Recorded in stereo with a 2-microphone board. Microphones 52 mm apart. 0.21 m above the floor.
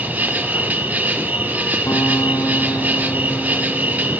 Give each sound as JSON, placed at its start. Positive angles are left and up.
{"t": 0.0, "sound": "an insect", "side_deg": -30, "distance_m": 2.0}
{"t": 1.9, "sound": "a guitar", "side_deg": 85, "distance_m": 4.0}